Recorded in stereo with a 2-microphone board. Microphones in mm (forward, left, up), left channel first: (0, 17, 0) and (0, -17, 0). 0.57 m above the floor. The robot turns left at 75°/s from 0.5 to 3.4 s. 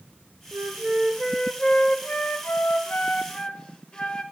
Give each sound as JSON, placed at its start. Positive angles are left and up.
{"t": 0.5, "sound": "a flute", "azimuth_deg": -115, "distance_m": 0.7}